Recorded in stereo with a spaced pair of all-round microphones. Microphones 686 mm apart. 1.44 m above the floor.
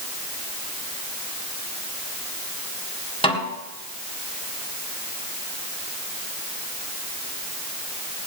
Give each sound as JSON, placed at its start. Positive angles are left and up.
{"t": 3.2, "sound": "a snare drum", "side_deg": 10, "distance_m": 2.5}